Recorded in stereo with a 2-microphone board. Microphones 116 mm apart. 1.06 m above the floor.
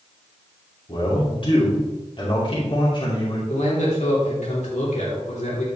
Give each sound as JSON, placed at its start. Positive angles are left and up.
{"t": 0.9, "sound": "a man speaking", "side_deg": 45, "distance_m": 2.5}
{"t": 3.5, "sound": "a man speaking", "side_deg": 80, "distance_m": 3.5}